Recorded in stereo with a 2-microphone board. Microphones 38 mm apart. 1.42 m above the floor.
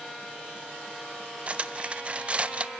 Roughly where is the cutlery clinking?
Right.